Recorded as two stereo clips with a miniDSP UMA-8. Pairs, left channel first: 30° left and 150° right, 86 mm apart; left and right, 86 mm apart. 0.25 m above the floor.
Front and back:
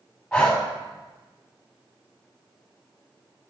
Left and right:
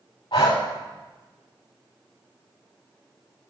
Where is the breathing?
115° left, 4 m.